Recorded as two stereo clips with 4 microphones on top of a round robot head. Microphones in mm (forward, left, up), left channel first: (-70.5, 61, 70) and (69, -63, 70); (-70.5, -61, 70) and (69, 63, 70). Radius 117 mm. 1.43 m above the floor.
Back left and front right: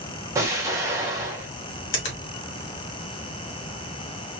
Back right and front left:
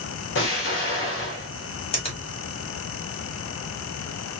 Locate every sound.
0.3 s an explosion: 115° right, 1.0 m
1.9 s a finger snap: 160° left, 1.4 m